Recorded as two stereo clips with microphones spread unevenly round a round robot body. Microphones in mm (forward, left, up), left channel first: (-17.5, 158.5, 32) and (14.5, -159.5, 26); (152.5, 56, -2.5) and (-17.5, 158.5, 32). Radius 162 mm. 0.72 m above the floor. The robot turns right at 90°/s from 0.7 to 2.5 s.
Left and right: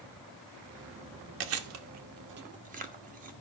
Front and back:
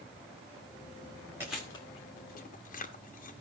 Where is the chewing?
125° right, 1.1 m; by 3.3 s 25° right, 1.1 m.